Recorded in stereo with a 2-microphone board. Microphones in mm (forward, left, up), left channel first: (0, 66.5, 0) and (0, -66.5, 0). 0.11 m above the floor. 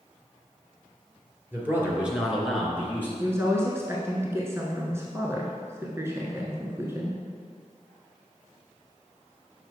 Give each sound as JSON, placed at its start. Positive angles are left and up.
{"t": 1.5, "sound": "a man speaking", "side_deg": -15, "distance_m": 2.5}
{"t": 3.2, "sound": "a woman speaking", "side_deg": -20, "distance_m": 1.1}